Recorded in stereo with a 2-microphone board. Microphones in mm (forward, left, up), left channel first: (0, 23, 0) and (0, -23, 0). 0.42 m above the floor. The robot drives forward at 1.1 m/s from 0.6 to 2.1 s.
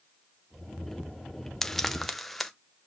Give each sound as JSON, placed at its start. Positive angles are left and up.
{"t": 1.6, "sound": "frying", "side_deg": 10, "distance_m": 0.6}